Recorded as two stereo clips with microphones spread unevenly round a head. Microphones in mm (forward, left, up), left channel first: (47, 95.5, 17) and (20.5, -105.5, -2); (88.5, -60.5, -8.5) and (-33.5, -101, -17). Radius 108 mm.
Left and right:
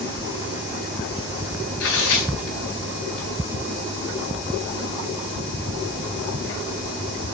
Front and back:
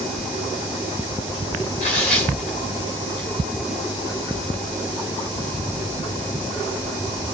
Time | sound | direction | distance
1.8 | tearing paper | 75° left | 4 m